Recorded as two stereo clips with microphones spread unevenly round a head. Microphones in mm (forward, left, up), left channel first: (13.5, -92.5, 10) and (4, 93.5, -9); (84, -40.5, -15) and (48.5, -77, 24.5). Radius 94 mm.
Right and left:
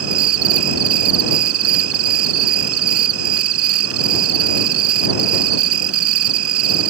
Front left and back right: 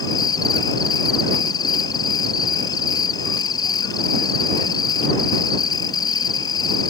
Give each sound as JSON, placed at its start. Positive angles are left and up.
{"t": 0.0, "sound": "an insect", "azimuth_deg": 90}